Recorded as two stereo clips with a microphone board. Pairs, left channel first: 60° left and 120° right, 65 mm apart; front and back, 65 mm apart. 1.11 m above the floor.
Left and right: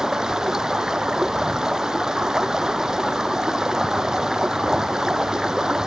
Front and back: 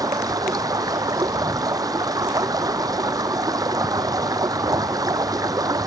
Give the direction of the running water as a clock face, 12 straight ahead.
7 o'clock.